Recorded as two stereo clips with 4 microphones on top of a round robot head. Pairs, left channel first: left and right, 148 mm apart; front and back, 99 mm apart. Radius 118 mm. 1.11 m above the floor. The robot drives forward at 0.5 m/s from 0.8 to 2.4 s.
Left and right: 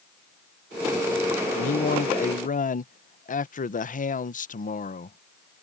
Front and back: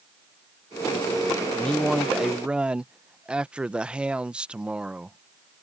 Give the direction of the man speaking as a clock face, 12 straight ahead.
9 o'clock.